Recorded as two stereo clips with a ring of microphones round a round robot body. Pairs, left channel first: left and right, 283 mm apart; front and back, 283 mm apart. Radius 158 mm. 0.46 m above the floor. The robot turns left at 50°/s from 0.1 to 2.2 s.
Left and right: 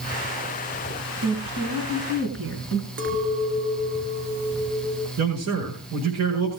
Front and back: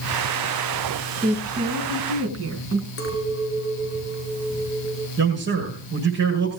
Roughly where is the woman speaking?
Right.